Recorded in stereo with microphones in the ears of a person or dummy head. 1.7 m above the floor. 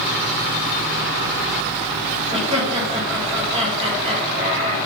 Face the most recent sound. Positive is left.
turn(degrees=-35)  # may be behind; listen again after turning